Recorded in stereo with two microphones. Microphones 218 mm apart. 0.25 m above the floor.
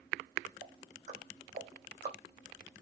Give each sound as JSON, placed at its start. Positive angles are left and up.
{"t": 0.6, "sound": "ticking", "side_deg": -35, "distance_m": 2.5}